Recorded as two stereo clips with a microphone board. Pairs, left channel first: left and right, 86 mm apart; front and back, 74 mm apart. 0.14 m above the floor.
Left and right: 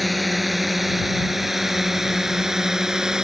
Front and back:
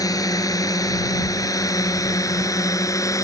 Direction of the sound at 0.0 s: Straight ahead.